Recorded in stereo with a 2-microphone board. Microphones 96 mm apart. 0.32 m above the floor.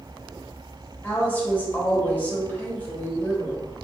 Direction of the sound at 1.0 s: 20° left (ahead or behind).